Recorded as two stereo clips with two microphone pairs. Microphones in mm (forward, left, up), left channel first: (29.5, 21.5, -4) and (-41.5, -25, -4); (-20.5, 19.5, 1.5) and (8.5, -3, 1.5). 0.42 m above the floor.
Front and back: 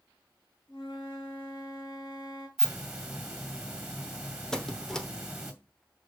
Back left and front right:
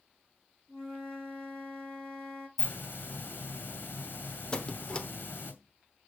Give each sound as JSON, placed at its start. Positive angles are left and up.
{"t": 0.7, "sound": "a flute", "azimuth_deg": 60, "distance_m": 4.5}
{"t": 2.6, "sound": "a hiss", "azimuth_deg": 130, "distance_m": 2.0}
{"t": 4.5, "sound": "a squeak", "azimuth_deg": 110, "distance_m": 0.8}